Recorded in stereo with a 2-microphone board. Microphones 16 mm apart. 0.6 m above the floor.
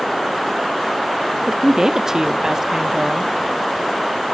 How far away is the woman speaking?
About 0.6 m.